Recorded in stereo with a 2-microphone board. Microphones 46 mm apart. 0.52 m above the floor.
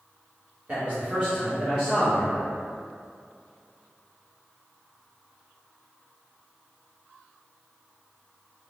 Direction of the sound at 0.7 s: 35° right (ahead or behind).